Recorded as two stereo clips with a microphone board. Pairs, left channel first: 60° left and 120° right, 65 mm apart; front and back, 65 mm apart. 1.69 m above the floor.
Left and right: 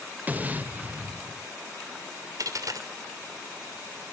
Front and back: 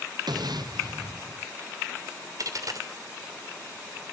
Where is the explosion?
175° left, 0.9 m.